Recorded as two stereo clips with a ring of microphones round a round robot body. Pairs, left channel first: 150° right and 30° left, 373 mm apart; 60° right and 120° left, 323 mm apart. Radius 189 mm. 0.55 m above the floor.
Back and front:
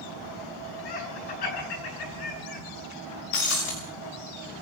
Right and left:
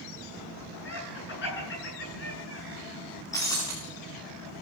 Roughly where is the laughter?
Behind right.